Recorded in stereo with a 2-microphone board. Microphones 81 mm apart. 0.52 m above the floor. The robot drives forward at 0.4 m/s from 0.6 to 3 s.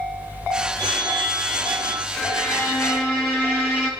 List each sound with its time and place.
0.8 s a phone ringing: 70° right (ahead or behind), 1.6 m; by 2.1 s 75° right (ahead or behind), 1.6 m
2.2 s a violin: 5° right (ahead or behind), 4 m